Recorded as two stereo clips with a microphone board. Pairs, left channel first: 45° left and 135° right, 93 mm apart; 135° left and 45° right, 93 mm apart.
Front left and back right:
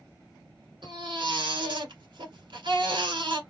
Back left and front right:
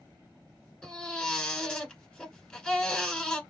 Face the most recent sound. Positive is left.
turn(degrees=-145)